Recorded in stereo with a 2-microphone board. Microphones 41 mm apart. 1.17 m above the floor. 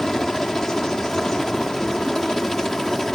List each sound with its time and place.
0.0 s a helicopter: 10° left (ahead or behind)